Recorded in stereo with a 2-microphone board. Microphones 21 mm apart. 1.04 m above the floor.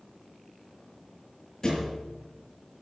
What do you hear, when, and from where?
1.6 s a thud: 30° left (ahead or behind), 6.5 m